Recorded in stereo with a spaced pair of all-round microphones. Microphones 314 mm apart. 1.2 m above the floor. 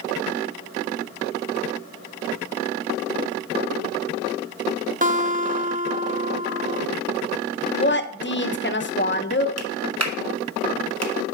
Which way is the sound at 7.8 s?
35° left (ahead or behind).